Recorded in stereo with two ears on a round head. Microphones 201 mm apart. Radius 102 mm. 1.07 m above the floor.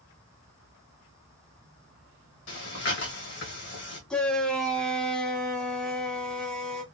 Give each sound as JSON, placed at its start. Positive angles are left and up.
{"t": 2.5, "sound": "breathing", "side_deg": 50, "distance_m": 1.4}
{"t": 4.1, "sound": "a shout", "side_deg": 5, "distance_m": 1.1}